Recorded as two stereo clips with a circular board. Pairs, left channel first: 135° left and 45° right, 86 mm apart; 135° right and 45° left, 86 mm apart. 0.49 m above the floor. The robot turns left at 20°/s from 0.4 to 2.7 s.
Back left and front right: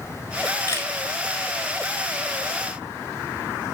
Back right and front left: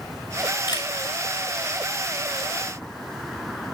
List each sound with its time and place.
0.7 s a camera shutter: 165° right, 7 m; by 0.9 s 170° right, 7 m